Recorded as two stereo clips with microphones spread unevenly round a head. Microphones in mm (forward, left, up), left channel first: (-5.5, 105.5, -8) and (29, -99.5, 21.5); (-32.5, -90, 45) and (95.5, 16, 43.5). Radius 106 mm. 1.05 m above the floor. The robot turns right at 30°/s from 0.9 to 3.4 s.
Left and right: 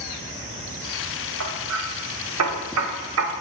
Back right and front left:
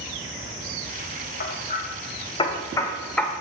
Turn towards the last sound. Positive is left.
turn(degrees=-50)